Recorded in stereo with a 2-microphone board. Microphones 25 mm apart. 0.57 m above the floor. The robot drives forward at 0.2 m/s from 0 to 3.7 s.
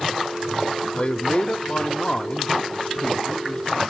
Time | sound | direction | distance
0.9 | a man speaking | 40° left (ahead or behind) | 0.8 m